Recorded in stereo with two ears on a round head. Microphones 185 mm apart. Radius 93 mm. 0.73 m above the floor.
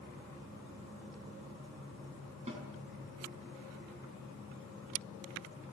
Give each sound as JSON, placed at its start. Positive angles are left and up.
{"t": 2.5, "sound": "a snare drum", "side_deg": -30, "distance_m": 5.5}